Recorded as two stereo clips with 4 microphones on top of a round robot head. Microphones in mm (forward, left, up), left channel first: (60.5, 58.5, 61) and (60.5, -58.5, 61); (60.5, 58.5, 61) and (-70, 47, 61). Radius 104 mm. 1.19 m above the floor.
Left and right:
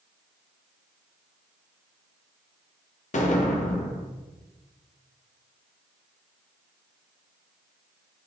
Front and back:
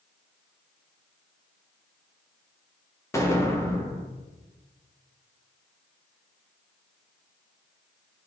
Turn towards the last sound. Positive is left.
turn(degrees=75)